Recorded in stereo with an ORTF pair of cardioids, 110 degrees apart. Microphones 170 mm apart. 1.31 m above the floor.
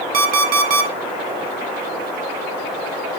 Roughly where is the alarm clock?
Ahead right.